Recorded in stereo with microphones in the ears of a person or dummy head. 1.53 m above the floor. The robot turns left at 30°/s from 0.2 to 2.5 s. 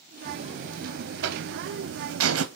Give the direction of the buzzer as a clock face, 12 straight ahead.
1 o'clock.